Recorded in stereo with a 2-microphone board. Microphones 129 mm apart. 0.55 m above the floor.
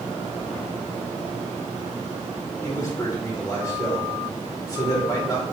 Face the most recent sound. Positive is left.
turn(degrees=25)  # may be behind; listen again after turning